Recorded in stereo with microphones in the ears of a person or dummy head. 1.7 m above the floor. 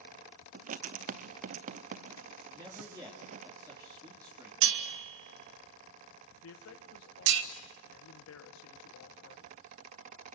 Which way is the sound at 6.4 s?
75° left (ahead or behind).